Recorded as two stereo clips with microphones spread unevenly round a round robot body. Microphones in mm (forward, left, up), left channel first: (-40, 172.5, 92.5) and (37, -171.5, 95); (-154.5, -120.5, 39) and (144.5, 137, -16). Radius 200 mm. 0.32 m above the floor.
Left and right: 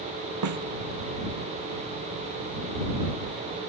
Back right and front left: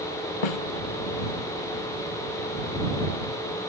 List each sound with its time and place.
0.4 s a snare drum: 120° right